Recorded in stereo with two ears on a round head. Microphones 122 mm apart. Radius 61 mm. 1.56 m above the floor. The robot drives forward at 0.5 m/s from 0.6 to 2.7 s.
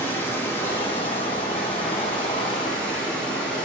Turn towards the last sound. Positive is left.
turn(degrees=10)  # may be behind; listen again after turning